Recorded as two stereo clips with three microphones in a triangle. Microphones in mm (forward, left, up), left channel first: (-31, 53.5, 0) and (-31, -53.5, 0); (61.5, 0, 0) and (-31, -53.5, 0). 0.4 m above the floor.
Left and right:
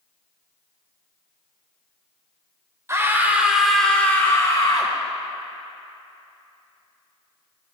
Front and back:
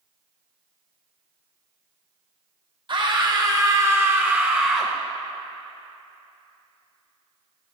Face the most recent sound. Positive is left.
turn(degrees=125)